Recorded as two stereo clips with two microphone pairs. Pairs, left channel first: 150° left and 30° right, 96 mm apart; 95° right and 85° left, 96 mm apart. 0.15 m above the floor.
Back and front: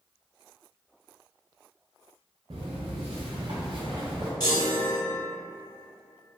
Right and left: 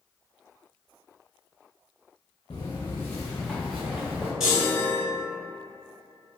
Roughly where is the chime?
Behind.